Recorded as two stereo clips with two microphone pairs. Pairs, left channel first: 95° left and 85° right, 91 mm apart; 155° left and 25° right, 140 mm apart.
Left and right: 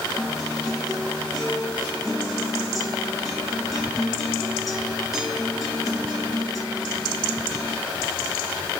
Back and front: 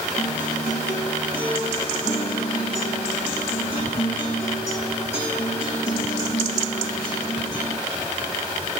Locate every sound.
0.2 s a guitar: 175° right, 5 m